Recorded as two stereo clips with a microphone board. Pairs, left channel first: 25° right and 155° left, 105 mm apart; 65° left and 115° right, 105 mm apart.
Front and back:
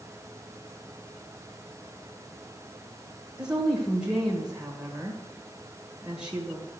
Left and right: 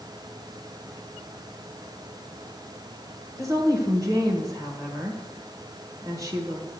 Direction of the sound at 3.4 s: 130° right.